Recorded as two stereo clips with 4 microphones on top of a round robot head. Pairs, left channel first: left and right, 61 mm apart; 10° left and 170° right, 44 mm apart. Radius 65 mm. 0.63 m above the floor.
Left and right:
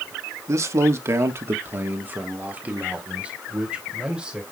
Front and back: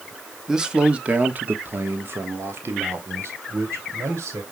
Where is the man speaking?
95° right, 1.2 m; by 4.4 s 165° right, 3 m.